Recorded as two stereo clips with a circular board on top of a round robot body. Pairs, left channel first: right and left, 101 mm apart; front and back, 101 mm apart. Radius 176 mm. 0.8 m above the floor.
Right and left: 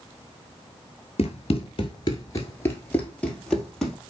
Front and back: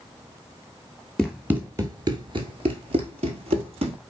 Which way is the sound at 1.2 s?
90° right.